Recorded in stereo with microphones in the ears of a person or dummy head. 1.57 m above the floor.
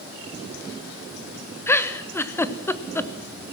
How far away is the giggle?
About 1.0 m.